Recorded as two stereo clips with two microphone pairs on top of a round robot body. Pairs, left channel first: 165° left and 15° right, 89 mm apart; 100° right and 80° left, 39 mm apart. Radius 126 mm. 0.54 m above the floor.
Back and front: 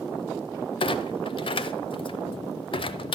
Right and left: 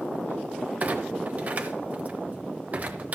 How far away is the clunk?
About 0.7 m.